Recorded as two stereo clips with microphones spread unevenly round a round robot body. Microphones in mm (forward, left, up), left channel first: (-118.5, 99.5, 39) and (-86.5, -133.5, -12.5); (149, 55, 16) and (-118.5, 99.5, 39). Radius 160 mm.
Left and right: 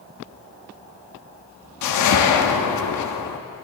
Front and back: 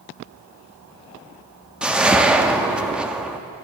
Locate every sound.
1.8 s a whoosh: 85° left, 0.7 m